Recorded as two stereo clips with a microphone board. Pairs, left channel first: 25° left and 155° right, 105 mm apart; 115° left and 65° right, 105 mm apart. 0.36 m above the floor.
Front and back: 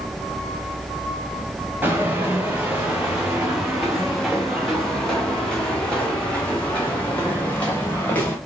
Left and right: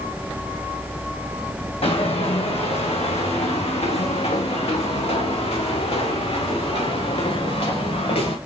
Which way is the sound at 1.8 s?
130° left.